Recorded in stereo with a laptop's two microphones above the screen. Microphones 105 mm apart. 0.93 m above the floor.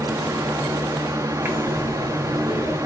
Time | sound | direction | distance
0.0 | a fan | 30° right (ahead or behind) | 1.0 m
1.4 | breathing | 25° right (ahead or behind) | 2.5 m